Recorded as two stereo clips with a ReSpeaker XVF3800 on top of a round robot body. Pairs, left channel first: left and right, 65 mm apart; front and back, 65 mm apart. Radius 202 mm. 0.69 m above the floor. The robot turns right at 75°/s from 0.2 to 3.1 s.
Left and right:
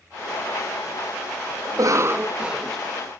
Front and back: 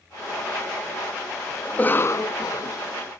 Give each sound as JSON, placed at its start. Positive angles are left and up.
{"t": 1.6, "sound": "a cough", "azimuth_deg": -75}